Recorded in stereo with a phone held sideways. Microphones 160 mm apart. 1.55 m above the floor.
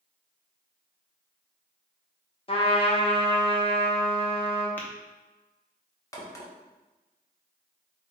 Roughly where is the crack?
Left.